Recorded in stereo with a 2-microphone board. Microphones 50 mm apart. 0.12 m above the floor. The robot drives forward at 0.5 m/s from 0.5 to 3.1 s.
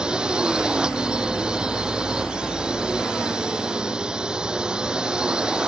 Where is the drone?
20° right (ahead or behind); by 5.7 s 15° right (ahead or behind).